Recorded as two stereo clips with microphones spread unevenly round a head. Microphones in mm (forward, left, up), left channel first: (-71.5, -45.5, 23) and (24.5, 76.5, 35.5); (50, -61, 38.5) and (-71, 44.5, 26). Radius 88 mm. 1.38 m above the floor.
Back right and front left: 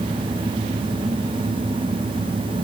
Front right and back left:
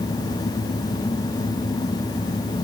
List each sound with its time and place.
Only background noise.